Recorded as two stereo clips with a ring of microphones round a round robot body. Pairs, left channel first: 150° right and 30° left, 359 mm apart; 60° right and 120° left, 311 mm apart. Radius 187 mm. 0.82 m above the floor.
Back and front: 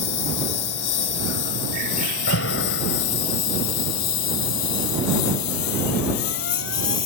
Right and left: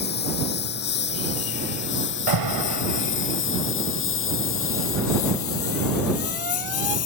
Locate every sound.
0.0 s a lawn mower: 125° right; by 7.1 s 115° right
2.3 s an alarm: 155° left